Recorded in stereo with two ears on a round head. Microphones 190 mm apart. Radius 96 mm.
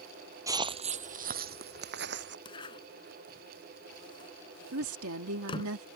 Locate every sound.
0.5 s footsteps: 15° right (ahead or behind); by 2.4 s 60° right (ahead or behind)
2.5 s a zipper: 25° left (ahead or behind)
4.7 s a woman speaking: 80° right